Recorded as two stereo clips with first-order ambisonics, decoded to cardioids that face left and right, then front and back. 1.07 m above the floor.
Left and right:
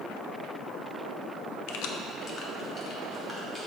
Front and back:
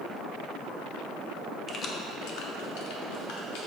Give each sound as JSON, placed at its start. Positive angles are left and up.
{"t": 1.7, "sound": "keys jangling", "azimuth_deg": 75, "distance_m": 0.6}